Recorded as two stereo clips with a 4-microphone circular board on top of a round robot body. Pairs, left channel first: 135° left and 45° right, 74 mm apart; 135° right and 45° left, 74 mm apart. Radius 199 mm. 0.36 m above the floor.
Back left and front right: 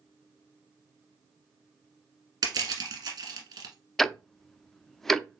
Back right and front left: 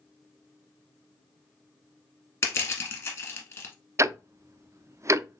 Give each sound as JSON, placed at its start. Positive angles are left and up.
{"t": 2.4, "sound": "crushing", "azimuth_deg": -80, "distance_m": 1.6}
{"t": 4.0, "sound": "ticking", "azimuth_deg": 50, "distance_m": 0.6}